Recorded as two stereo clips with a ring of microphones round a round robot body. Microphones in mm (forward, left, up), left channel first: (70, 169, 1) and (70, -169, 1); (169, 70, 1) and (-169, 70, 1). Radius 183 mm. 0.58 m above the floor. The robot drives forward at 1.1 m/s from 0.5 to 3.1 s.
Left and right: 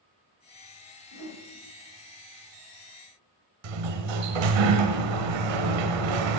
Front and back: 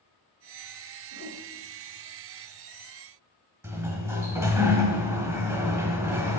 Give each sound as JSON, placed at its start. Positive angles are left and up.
{"t": 1.1, "sound": "a whoosh", "azimuth_deg": 45, "distance_m": 4.0}
{"t": 3.6, "sound": "a sliding door", "azimuth_deg": -95, "distance_m": 1.1}